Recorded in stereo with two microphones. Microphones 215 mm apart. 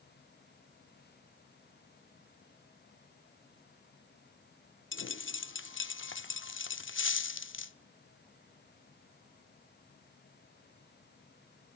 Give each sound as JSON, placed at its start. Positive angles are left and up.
{"t": 4.9, "sound": "a dropped coin", "side_deg": 65, "distance_m": 0.6}